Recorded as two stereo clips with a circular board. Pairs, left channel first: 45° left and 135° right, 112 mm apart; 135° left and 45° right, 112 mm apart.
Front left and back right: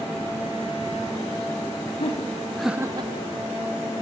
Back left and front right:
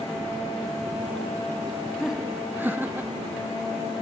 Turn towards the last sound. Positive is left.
turn(degrees=-115)